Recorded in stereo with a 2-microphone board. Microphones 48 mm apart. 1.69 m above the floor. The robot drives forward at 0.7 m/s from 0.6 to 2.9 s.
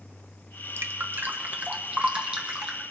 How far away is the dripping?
About 0.7 m.